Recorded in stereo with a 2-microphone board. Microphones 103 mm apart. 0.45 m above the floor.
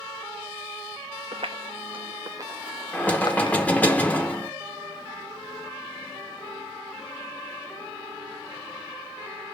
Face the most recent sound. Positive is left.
turn(degrees=15)  # may be behind; listen again after turning